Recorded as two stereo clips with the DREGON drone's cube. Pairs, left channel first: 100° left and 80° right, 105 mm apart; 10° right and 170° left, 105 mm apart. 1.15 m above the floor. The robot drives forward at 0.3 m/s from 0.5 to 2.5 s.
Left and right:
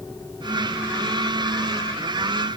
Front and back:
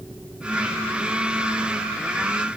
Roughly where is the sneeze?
I don't hear a sneeze.